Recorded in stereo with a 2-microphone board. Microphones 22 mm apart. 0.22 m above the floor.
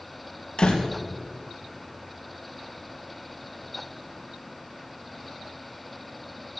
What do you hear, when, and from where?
0.6 s a door slam: 60° left (ahead or behind), 3.5 m